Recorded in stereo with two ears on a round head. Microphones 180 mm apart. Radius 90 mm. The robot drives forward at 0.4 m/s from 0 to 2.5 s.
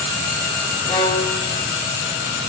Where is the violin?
25° left (ahead or behind), 2.5 m; by 1.5 s 30° left (ahead or behind), 2 m.